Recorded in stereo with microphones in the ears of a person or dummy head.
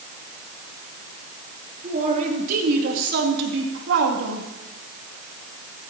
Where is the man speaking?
35° right (ahead or behind), 2.5 m; by 4.5 s 75° right (ahead or behind), 2.5 m.